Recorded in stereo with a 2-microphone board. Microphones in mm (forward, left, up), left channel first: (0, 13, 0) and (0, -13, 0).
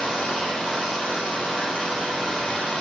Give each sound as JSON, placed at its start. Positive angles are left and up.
{"t": 0.0, "sound": "running water", "side_deg": 35, "distance_m": 4.5}